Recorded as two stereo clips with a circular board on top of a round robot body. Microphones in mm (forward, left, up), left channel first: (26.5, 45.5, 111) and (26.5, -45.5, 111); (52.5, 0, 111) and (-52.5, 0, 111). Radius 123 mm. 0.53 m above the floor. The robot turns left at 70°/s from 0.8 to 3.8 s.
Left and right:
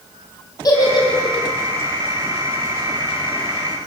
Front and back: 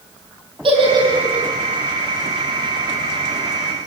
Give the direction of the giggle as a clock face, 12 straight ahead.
7 o'clock.